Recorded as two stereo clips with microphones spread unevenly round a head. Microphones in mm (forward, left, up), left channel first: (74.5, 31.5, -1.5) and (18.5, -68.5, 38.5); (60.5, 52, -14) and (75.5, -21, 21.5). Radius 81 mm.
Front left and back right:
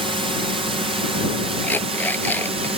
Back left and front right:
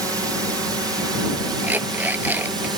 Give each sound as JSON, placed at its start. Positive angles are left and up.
{"t": 0.0, "sound": "a drone", "azimuth_deg": -125}
{"t": 1.6, "sound": "an alarm clock", "azimuth_deg": -15}